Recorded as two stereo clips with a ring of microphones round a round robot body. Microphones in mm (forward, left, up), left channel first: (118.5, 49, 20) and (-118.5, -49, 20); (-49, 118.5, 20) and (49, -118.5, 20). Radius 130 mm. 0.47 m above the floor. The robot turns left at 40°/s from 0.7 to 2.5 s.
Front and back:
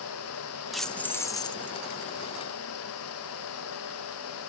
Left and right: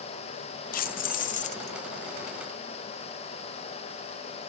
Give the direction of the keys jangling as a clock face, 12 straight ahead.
8 o'clock.